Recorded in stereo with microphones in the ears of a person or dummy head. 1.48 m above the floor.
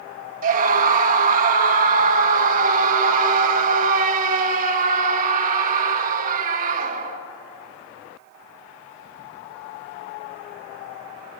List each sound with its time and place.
0.4 s a scream: 50° right (ahead or behind), 2 m